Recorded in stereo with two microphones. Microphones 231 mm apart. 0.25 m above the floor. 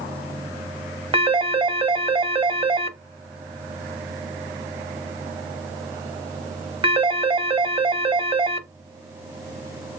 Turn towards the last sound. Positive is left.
turn(degrees=-20)  # may be behind; listen again after turning